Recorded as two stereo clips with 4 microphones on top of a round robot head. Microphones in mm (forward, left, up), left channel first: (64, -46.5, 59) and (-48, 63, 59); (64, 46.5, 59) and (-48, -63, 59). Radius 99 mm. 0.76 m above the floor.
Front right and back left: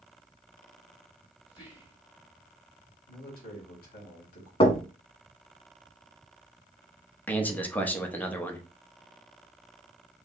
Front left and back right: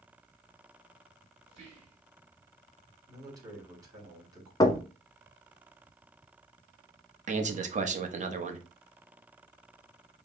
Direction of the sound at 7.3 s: 120° right.